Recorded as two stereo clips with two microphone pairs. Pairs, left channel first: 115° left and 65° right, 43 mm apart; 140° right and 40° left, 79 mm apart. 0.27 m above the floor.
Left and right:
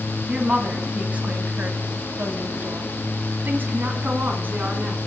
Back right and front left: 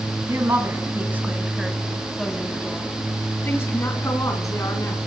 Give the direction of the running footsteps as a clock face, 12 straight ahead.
I don't hear running footsteps.